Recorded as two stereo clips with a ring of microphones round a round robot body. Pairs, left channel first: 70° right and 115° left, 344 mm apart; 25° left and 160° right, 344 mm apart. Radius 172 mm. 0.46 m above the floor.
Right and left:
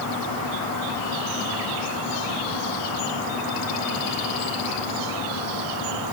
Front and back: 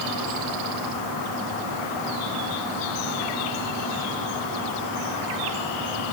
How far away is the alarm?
I don't hear an alarm.